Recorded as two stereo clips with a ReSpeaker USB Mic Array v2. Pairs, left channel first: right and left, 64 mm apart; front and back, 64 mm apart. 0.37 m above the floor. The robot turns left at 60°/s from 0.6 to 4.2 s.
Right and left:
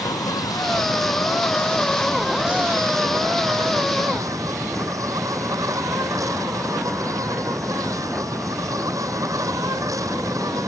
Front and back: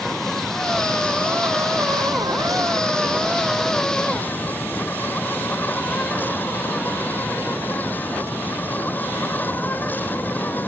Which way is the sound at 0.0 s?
85° right.